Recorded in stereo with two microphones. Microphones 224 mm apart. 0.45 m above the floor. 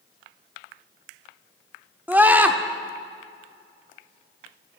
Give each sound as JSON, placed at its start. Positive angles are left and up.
{"t": 2.1, "sound": "a scream", "side_deg": -10, "distance_m": 1.1}